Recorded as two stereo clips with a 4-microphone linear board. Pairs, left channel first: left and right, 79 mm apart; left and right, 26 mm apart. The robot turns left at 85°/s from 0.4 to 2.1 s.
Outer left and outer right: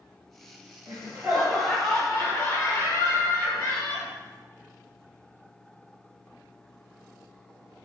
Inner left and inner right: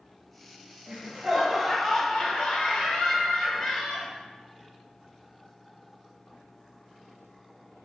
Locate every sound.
0.9 s laughter: 105° right, 1.6 m; by 4.1 s 150° left, 1.6 m